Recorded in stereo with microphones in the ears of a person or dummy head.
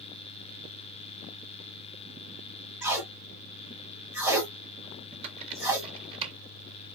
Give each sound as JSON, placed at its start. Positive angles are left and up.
{"t": 2.8, "sound": "tape being pulled", "side_deg": -10, "distance_m": 1.5}
{"t": 5.1, "sound": "typing on a keyboard", "side_deg": -35, "distance_m": 1.1}